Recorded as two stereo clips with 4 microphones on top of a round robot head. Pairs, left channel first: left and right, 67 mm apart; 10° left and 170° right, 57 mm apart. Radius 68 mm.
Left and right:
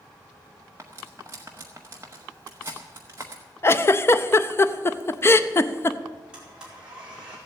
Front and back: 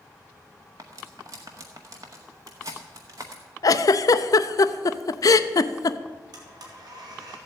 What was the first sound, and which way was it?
Cutlery clinking, 150° right.